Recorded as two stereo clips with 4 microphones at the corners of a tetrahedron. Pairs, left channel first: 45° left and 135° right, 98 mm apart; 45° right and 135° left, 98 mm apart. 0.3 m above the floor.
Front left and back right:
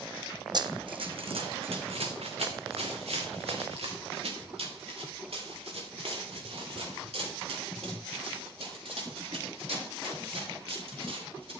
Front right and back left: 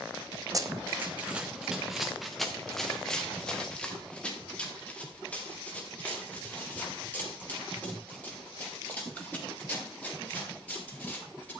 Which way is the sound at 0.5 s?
175° right.